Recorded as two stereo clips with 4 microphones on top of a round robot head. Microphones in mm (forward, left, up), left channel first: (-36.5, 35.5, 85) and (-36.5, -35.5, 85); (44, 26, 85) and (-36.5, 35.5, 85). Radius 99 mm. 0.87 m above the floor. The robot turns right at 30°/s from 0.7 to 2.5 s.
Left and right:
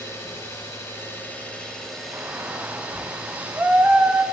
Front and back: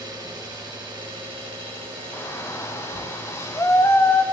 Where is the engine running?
140° left, 4 m; by 4.3 s 165° right, 4 m.